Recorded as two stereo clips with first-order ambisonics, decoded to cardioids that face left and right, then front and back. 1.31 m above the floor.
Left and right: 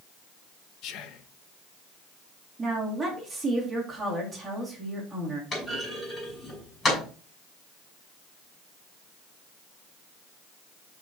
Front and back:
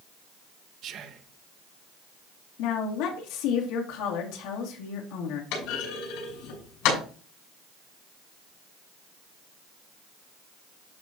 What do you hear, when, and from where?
0.8 s whispering: 130° left, 1.0 m
2.6 s a woman speaking: 15° right, 2.5 m
5.5 s a clunk: 20° left, 6.5 m